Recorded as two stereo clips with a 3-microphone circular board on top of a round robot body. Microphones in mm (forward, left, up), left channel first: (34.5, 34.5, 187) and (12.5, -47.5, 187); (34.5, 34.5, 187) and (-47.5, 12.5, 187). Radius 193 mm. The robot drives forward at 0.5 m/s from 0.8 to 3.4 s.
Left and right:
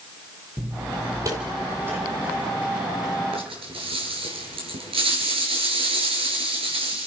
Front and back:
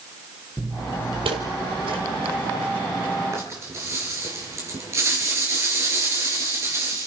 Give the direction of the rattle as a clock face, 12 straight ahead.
4 o'clock.